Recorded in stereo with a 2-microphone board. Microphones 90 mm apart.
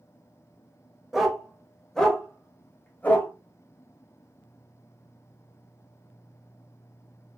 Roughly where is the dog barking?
Centre.